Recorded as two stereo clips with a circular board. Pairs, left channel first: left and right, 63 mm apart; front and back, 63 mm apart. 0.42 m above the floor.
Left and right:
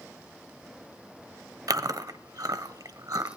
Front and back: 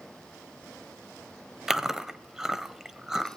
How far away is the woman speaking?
No woman speaking in this recording.